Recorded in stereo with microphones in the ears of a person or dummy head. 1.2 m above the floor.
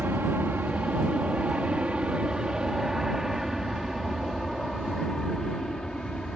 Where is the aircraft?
10° right (ahead or behind); by 6.3 s 5° left (ahead or behind).